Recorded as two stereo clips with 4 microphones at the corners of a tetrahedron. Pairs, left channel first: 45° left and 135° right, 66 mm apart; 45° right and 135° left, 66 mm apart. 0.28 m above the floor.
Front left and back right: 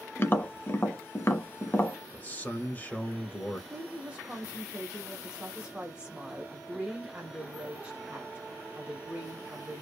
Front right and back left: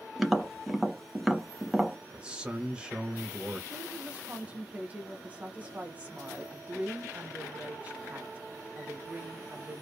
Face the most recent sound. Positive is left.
turn(degrees=175)